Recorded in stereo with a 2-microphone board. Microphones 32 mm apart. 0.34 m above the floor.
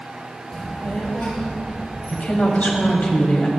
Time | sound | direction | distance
0.5 | a child speaking | 15° left (ahead or behind) | 0.9 m
2.1 | a woman speaking | 55° left (ahead or behind) | 1.5 m